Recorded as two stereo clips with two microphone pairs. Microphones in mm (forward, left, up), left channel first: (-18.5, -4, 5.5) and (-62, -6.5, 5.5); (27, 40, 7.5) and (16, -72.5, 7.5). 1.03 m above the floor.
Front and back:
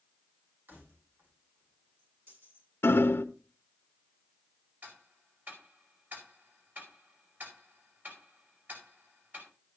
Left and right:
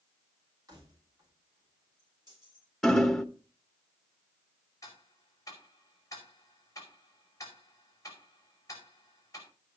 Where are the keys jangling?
150° right, 6 m; by 2.7 s 145° right, 7 m.